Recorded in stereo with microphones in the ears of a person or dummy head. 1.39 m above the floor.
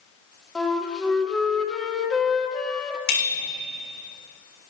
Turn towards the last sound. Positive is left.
turn(degrees=50)  # may be behind; listen again after turning